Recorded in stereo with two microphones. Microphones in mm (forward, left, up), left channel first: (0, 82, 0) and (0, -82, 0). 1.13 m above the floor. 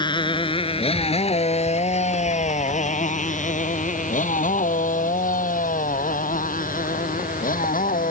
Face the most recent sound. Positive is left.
turn(degrees=60)  # may be behind; listen again after turning